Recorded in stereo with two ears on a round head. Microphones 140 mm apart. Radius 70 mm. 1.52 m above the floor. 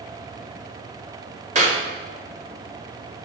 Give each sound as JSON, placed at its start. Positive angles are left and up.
{"t": 1.6, "sound": "a clap", "side_deg": -45, "distance_m": 3.0}